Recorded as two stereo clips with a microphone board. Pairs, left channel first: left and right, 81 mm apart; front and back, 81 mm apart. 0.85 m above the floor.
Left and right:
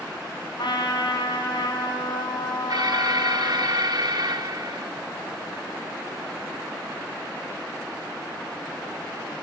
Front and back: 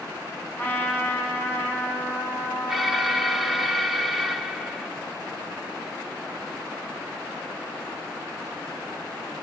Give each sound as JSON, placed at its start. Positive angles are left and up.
{"t": 0.6, "sound": "a trumpet", "azimuth_deg": 65, "distance_m": 5.5}
{"t": 2.7, "sound": "an alarm", "azimuth_deg": -90, "distance_m": 2.0}